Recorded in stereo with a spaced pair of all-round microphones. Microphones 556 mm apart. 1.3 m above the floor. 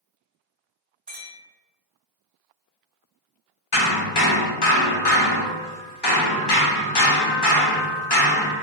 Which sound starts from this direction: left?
Hammering, at 3.7 s.